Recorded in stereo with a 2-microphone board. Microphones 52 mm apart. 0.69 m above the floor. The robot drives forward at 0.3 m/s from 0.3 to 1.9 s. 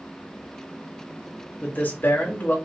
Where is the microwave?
I don't hear a microwave.